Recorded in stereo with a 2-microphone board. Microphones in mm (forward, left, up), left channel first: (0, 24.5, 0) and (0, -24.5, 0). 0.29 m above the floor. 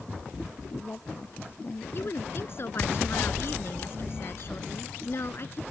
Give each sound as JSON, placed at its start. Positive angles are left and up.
{"t": 0.6, "sound": "a woman speaking", "side_deg": 45}
{"t": 1.9, "sound": "a woman speaking", "side_deg": 55}